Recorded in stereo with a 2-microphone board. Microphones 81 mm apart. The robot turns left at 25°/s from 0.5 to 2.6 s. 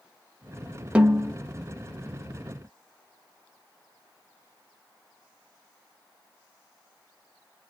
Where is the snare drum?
15° right (ahead or behind), 0.9 m; by 1.4 s 10° right (ahead or behind), 0.9 m.